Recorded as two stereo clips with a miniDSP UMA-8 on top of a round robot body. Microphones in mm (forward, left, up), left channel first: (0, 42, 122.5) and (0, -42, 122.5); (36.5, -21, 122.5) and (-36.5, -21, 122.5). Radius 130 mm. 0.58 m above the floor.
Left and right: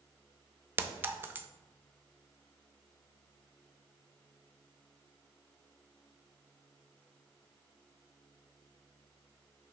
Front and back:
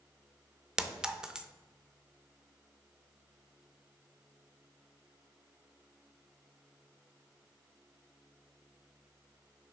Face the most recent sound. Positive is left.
turn(degrees=-115)